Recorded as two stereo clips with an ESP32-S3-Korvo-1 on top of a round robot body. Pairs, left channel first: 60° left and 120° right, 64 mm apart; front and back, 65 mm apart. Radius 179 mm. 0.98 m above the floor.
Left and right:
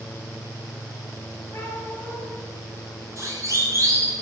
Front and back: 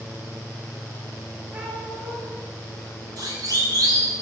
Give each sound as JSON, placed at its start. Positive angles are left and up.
{"t": 1.5, "sound": "a cat meowing", "azimuth_deg": 120, "distance_m": 9.0}
{"t": 3.2, "sound": "a siren", "azimuth_deg": -160, "distance_m": 7.5}